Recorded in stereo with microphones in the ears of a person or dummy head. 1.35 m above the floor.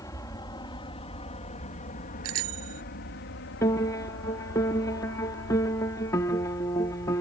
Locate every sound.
0.0 s an aircraft: 20° left (ahead or behind); by 7.2 s 60° left (ahead or behind)
2.2 s a bicycle bell: 85° right
3.6 s a piano: 10° left (ahead or behind)